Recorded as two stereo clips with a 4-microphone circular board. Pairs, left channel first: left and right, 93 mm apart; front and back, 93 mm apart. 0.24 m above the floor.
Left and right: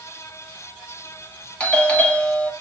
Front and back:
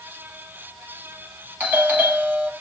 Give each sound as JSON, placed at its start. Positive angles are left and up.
{"t": 1.6, "sound": "a doorbell", "azimuth_deg": 145, "distance_m": 1.4}